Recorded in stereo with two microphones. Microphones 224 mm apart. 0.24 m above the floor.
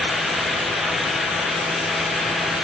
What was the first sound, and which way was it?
Only background noise.